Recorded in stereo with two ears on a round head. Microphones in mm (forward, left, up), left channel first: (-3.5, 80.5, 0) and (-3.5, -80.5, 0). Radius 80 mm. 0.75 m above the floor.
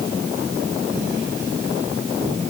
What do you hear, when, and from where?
Only background noise.